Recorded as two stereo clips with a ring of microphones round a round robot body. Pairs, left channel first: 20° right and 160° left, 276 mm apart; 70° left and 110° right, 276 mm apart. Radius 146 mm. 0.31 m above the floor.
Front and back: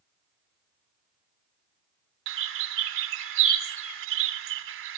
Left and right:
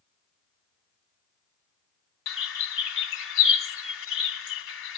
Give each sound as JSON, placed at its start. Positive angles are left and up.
{"t": 2.3, "sound": "a bird", "azimuth_deg": 115, "distance_m": 0.8}